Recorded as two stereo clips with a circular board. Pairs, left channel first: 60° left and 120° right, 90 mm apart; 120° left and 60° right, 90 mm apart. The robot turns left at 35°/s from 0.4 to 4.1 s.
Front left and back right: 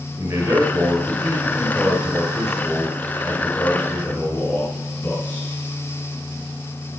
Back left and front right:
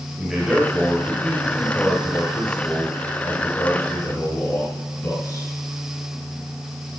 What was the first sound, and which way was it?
A man speaking, 130° right.